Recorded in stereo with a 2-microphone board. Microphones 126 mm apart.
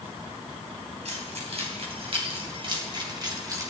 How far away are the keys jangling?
About 3.5 m.